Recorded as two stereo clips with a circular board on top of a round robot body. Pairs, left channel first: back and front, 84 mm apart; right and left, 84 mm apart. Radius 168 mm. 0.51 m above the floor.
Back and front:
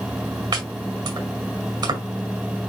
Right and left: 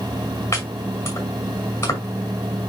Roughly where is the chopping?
Ahead right.